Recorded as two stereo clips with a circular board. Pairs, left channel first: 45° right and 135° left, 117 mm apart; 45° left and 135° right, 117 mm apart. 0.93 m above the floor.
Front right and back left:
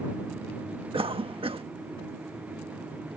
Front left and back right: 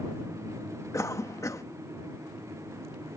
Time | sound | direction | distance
0.9 | a cough | 105° left | ?